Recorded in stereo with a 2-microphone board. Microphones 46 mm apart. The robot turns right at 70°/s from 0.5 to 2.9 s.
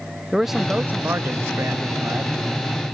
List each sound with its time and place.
0.3 s a man speaking: 175° right; by 2.4 s 40° right